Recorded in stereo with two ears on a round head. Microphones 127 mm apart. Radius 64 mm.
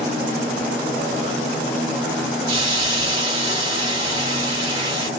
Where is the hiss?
30° right (ahead or behind), 1.7 m.